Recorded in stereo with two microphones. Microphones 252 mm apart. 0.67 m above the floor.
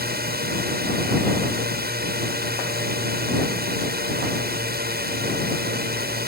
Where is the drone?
40° right (ahead or behind).